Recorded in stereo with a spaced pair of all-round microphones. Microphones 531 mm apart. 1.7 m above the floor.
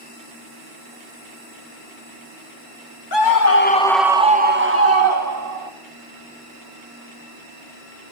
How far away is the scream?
About 0.9 m.